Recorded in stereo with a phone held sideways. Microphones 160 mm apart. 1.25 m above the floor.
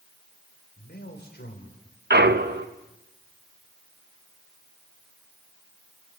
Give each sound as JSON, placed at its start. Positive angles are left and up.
{"t": 0.8, "sound": "a man speaking", "side_deg": 90, "distance_m": 4.5}
{"t": 2.1, "sound": "a clunk", "side_deg": -80, "distance_m": 1.0}